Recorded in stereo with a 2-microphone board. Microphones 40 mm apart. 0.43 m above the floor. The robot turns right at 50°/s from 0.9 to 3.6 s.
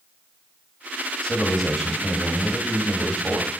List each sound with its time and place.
1.2 s a man speaking: 155° left, 1.9 m; by 3.5 s 90° right, 1.9 m